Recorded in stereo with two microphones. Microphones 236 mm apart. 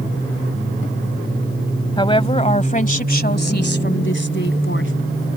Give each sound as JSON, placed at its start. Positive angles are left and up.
{"t": 2.0, "sound": "a woman speaking", "side_deg": 20}